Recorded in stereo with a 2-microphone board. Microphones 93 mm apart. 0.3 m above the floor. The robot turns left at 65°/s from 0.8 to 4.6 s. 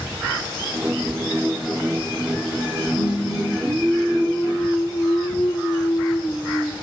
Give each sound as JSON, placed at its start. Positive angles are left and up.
{"t": 3.0, "sound": "singing", "azimuth_deg": -105, "distance_m": 3.0}